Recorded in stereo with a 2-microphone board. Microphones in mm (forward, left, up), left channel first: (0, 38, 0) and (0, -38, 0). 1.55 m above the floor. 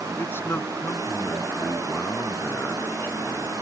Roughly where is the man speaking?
Left.